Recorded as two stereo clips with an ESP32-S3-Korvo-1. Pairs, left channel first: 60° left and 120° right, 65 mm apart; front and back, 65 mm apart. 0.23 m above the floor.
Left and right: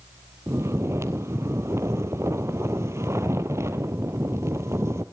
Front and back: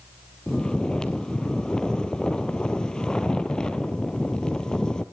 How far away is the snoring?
About 1.1 m.